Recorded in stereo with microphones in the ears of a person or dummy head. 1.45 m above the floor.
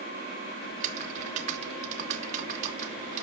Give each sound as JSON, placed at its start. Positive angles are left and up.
{"t": 0.7, "sound": "typing on a keyboard", "side_deg": -40, "distance_m": 1.6}